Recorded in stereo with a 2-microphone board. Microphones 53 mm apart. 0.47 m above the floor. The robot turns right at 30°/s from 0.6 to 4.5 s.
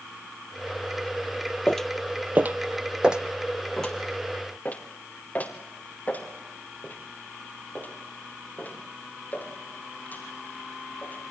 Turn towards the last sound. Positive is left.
turn(degrees=35)  # may be behind; listen again after turning